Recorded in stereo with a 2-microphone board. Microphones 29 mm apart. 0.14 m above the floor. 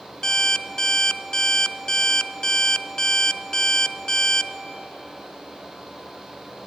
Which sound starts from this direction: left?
An alarm clock, at 0.2 s.